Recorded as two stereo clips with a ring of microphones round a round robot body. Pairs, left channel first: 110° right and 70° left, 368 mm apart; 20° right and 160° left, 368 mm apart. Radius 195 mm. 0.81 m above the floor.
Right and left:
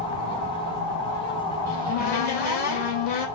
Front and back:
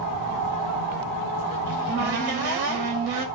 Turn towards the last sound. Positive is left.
turn(degrees=180)